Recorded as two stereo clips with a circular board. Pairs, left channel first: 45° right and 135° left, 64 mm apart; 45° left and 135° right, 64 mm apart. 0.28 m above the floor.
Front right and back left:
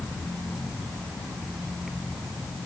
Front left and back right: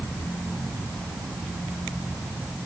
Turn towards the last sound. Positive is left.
No sound to turn to.